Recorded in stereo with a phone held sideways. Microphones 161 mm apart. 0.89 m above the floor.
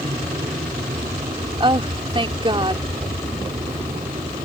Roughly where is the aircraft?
Right.